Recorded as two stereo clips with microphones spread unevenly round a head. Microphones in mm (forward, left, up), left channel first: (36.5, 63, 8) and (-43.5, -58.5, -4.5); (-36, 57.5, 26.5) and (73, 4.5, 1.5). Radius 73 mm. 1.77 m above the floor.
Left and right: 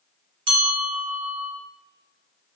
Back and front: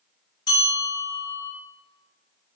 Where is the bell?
170° right, 1.7 m.